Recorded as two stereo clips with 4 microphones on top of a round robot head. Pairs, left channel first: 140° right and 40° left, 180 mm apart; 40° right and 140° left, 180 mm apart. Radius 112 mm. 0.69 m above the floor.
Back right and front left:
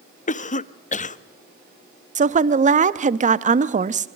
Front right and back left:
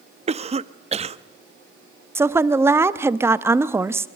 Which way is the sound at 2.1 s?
70° left.